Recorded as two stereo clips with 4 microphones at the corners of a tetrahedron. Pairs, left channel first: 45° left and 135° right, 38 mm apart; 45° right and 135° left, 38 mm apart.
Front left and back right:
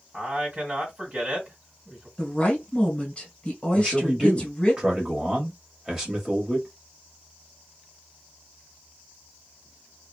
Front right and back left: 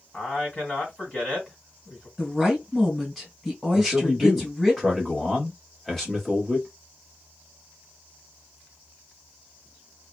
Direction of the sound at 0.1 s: 95° right.